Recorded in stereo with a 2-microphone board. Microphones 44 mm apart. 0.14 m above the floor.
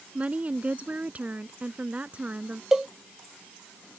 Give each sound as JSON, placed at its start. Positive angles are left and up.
{"t": 0.1, "sound": "a woman speaking", "side_deg": -35}
{"t": 2.7, "sound": "a cowbell", "side_deg": -10}